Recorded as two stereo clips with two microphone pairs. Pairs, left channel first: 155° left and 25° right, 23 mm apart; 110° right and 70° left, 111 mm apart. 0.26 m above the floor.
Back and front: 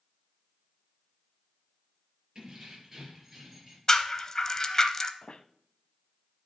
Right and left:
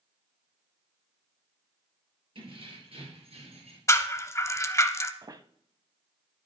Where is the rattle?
155° right, 0.7 m.